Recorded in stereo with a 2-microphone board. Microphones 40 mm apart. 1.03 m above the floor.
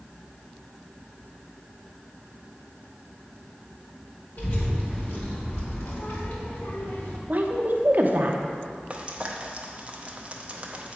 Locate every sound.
4.4 s a child speaking: 65° left (ahead or behind), 2.5 m; by 7.2 s 75° left (ahead or behind), 2 m
7.3 s a woman speaking: 45° right (ahead or behind), 0.7 m
8.9 s frying: 30° right (ahead or behind), 0.7 m